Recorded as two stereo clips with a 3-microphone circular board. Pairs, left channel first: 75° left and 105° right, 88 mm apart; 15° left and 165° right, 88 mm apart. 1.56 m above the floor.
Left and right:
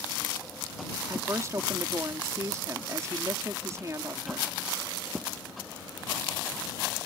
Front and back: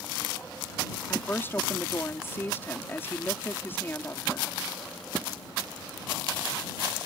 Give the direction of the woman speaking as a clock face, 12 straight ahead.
2 o'clock.